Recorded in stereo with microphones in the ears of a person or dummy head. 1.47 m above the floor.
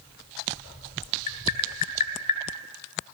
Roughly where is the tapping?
Left.